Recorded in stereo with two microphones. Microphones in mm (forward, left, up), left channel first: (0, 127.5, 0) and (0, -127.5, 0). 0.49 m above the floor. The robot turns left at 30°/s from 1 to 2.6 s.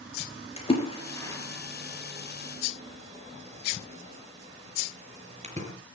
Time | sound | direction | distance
0.6 | a splash | 20° left (ahead or behind) | 5.5 m